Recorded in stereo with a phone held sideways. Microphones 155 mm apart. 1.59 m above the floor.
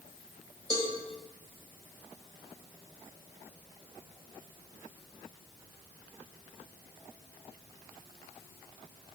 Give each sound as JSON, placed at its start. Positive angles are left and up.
{"t": 0.7, "sound": "a cowbell", "side_deg": -25, "distance_m": 1.4}